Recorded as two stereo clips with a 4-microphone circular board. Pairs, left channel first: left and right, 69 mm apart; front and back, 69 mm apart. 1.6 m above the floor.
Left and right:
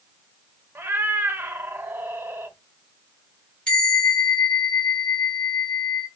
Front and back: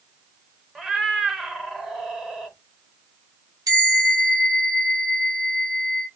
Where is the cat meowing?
95° right, 0.8 m.